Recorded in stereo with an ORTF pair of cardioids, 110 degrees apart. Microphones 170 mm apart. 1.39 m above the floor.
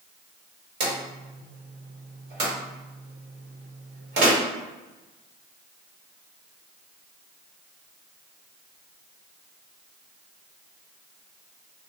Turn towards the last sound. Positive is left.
turn(degrees=-60)